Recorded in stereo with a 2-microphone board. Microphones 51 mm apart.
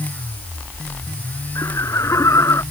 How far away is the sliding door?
I don't hear a sliding door.